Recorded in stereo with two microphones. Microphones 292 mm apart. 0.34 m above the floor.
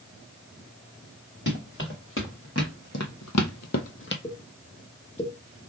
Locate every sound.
1.5 s running footsteps: 40° left (ahead or behind), 2 m
4.2 s a pop: 20° left (ahead or behind), 1.1 m